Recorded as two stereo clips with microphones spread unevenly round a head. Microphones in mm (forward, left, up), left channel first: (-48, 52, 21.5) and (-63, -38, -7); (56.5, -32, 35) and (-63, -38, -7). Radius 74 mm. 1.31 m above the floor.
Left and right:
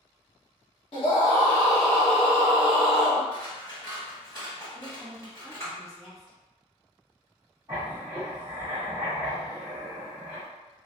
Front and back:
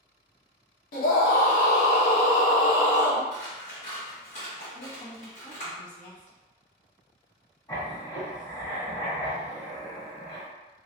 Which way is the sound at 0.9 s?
25° left.